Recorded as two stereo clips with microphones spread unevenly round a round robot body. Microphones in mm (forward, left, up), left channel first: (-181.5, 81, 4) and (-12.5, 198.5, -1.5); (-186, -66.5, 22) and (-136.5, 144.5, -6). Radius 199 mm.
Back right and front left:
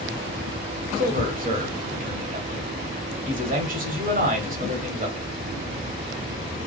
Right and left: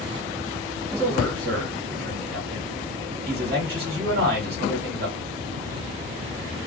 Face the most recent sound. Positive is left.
turn(degrees=65)